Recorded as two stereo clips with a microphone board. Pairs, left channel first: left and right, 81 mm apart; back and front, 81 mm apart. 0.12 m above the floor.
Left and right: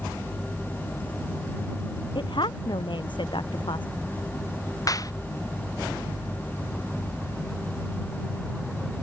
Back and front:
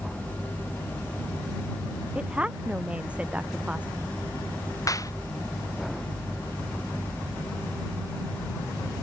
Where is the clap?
135° left.